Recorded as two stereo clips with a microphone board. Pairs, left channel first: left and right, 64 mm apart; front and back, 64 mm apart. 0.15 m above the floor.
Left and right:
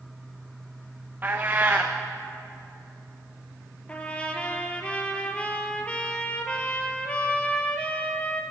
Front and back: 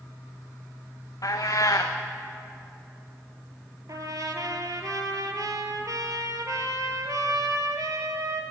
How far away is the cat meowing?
About 0.9 m.